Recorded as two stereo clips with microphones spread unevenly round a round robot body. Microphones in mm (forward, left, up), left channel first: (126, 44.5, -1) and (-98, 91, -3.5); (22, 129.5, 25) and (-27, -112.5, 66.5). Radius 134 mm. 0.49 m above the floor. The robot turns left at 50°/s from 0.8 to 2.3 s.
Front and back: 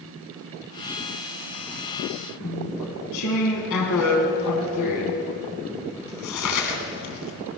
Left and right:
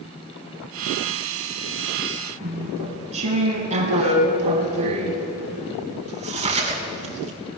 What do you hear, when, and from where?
2.4 s chewing: 35° right, 2.5 m